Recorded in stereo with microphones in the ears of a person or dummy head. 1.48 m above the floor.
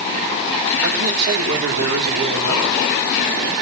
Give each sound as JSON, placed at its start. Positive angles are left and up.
{"t": 0.8, "sound": "a man speaking", "side_deg": -65, "distance_m": 5.5}